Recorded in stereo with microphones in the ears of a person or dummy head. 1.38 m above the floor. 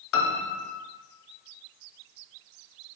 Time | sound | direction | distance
0.1 | a piano | 65° left (ahead or behind) | 0.7 m